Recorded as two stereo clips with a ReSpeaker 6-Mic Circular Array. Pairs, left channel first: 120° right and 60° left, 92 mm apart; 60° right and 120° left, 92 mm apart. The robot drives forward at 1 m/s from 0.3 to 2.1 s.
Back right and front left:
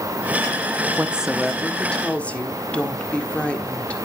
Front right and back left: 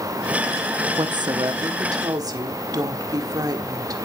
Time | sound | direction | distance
1.0 | a woman speaking | 120° left | 0.6 m